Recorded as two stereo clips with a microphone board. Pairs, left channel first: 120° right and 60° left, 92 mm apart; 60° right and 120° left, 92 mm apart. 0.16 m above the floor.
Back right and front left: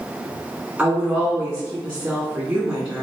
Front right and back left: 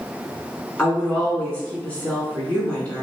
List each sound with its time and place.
0.8 s a woman speaking: 5° right, 1.6 m